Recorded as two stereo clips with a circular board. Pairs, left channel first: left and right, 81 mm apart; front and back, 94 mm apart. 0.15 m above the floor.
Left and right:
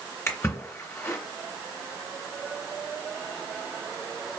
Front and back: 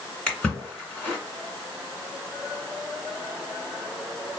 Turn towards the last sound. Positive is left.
turn(degrees=65)